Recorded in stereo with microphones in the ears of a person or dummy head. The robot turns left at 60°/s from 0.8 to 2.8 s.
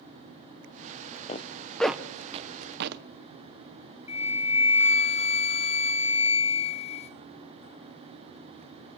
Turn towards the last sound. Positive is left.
turn(degrees=35)  # may be behind; listen again after turning